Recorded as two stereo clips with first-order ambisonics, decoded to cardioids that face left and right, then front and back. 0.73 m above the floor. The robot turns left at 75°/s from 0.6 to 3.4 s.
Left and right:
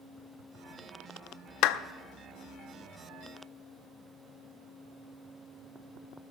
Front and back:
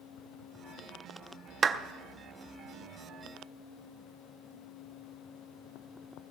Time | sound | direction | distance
1.6 | a clap | 115° left | 0.6 m